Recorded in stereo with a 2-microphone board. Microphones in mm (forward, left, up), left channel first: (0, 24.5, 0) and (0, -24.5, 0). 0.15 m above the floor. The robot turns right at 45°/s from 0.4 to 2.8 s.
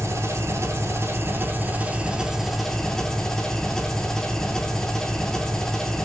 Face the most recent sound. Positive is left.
turn(degrees=15)